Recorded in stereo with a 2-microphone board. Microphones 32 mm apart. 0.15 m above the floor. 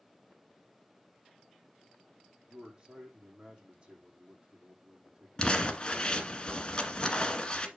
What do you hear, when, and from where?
2.5 s a man speaking: 35° right (ahead or behind), 6.5 m
5.4 s crumpling: 25° left (ahead or behind), 1.5 m